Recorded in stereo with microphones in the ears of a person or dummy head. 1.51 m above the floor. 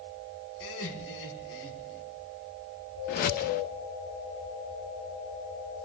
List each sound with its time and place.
0.6 s laughter: 65° left (ahead or behind), 5 m
3.1 s a whoosh: 50° left (ahead or behind), 0.6 m